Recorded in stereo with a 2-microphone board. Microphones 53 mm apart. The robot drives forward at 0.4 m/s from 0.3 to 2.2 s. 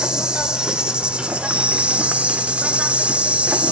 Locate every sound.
0.0 s an insect: 15° right (ahead or behind), 0.9 m; by 3.7 s 20° right (ahead or behind), 0.6 m